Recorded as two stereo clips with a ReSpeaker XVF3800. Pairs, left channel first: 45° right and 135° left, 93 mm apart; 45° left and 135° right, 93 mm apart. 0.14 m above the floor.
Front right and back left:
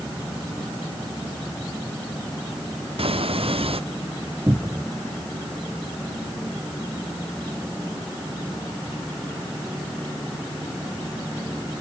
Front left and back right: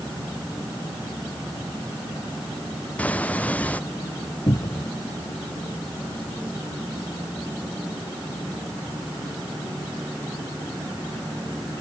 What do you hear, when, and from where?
3.0 s footsteps: 120° left
4.5 s a cupboard door: 75° left